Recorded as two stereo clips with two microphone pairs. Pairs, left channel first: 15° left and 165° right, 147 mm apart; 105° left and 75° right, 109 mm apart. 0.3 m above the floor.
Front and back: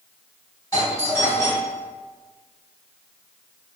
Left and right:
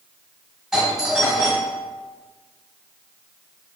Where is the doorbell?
5° left, 1.5 m.